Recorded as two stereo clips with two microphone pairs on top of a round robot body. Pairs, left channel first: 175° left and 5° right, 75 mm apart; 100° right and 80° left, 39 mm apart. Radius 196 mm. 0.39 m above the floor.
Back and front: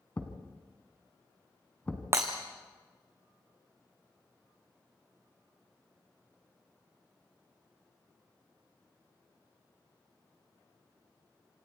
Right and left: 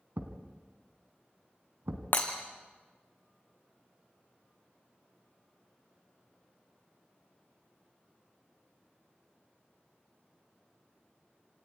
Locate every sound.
0.2 s a thud: 105° left, 2 m
2.1 s breaking glass: 60° right, 2.0 m